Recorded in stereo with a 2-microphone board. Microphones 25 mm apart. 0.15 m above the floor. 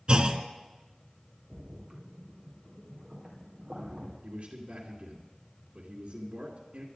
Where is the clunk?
40° right (ahead or behind), 0.9 m.